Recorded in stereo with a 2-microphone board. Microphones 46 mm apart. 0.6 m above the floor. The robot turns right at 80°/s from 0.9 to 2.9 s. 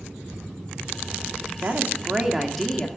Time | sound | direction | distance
1.6 | a woman speaking | 75° right | 1.5 m